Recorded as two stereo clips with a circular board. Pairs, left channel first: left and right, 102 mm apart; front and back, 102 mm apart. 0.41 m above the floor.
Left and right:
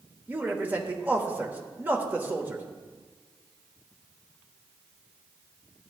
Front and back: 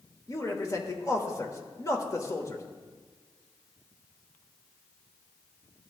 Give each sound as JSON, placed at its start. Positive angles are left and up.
{"t": 0.3, "sound": "a man speaking", "azimuth_deg": -30, "distance_m": 1.1}